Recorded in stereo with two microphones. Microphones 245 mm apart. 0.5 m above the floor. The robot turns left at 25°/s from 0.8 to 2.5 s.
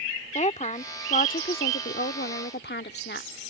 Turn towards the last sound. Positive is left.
turn(degrees=95)